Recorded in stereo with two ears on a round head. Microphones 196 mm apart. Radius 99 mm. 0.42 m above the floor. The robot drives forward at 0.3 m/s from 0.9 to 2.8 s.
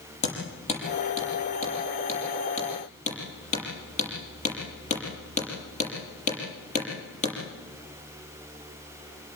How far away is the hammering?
About 7 m.